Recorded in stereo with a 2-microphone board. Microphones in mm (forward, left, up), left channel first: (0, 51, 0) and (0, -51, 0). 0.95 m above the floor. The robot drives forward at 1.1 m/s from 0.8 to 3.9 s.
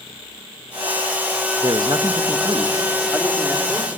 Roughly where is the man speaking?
Right.